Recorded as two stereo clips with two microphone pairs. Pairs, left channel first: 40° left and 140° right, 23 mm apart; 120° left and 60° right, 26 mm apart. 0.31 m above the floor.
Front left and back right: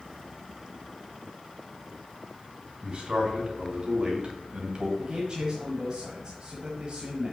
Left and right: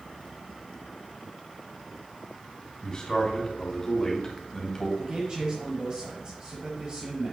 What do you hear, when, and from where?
2.8 s a man speaking: straight behind, 3 m; by 4.9 s 170° right, 2 m
5.0 s a man speaking: 95° right, 1.4 m